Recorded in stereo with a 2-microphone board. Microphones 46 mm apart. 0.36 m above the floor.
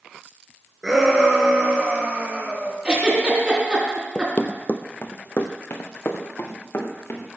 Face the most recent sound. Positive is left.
turn(degrees=50)  # may be behind; listen again after turning